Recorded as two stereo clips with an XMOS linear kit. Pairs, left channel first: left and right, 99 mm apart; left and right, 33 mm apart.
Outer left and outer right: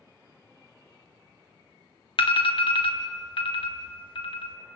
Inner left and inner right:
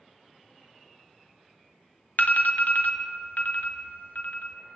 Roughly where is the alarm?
Left.